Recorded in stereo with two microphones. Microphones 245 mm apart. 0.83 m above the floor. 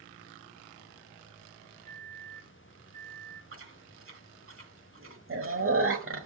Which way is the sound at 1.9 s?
25° left (ahead or behind).